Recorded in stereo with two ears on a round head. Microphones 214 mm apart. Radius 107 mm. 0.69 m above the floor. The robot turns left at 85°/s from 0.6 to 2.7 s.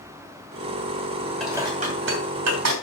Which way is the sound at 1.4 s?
Centre (ahead or behind).